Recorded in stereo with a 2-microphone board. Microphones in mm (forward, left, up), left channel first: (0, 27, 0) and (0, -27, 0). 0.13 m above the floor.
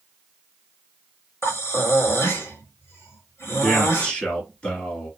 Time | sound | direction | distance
1.4 | breathing | 50° left (ahead or behind) | 1.7 m
3.6 | a man speaking | 20° left (ahead or behind) | 1.9 m